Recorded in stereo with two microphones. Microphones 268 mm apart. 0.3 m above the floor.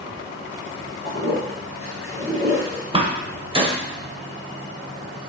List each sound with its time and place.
1.0 s a toilet flushing: 50° right (ahead or behind), 1.8 m
2.9 s a door slam: 20° right (ahead or behind), 0.6 m